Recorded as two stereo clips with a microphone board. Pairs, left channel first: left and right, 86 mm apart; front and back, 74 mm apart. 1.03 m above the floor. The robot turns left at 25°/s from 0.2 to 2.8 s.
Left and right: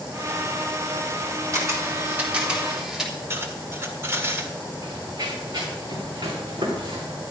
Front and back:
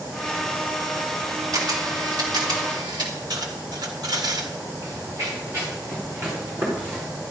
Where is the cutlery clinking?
150° right, 1.8 m.